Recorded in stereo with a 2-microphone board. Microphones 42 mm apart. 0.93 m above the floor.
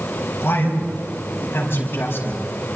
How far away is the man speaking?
About 5.5 m.